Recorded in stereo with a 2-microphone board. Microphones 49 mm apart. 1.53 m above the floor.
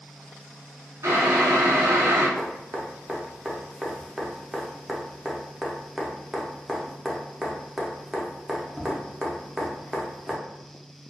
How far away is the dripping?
About 0.5 m.